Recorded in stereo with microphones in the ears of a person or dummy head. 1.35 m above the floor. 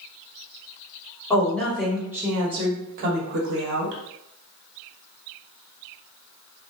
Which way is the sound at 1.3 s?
15° left (ahead or behind).